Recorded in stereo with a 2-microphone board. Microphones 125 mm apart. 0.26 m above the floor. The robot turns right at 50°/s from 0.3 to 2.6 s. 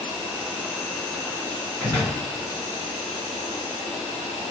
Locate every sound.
0.0 s an insect: 20° right, 1.9 m; by 4.5 s 95° left, 1.9 m
1.8 s a door slam: 20° left (ahead or behind), 2 m; by 2.2 s 40° left (ahead or behind), 2 m